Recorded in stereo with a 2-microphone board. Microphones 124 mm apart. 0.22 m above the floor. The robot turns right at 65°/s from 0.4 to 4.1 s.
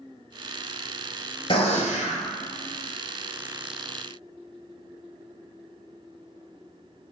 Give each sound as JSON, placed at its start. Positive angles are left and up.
{"t": 1.5, "sound": "a gunshot", "azimuth_deg": 45, "distance_m": 1.0}